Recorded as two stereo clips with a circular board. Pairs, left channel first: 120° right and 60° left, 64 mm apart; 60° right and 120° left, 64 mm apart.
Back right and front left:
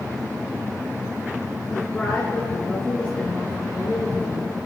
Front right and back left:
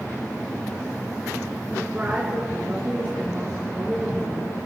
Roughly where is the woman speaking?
Behind.